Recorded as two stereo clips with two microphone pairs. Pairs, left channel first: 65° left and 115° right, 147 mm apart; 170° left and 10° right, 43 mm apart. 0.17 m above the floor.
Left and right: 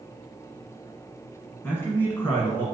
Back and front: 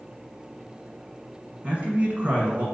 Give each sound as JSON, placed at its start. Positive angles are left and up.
{"t": 1.6, "sound": "a man speaking", "azimuth_deg": 10, "distance_m": 1.3}